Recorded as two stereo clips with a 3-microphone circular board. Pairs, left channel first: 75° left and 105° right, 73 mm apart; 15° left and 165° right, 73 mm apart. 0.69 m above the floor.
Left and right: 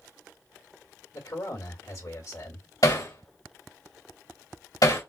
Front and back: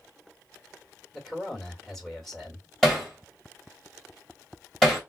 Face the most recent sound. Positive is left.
turn(degrees=100)